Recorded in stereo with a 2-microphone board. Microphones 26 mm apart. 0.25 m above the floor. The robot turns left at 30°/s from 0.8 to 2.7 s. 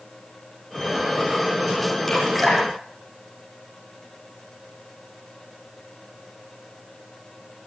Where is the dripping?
10° left (ahead or behind), 9.5 m; by 3.8 s 10° right (ahead or behind), 9.5 m.